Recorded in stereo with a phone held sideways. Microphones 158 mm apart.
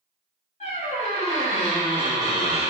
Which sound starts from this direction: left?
A squeak, at 0.6 s.